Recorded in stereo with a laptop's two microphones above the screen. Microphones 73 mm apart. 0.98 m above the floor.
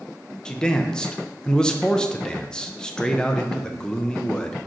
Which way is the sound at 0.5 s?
10° left (ahead or behind).